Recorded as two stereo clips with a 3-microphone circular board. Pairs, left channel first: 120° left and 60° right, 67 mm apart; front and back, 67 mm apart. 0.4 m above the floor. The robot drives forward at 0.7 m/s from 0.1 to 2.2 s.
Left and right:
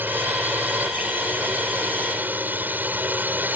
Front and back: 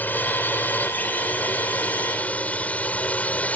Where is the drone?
35° right; by 3.6 s 40° right.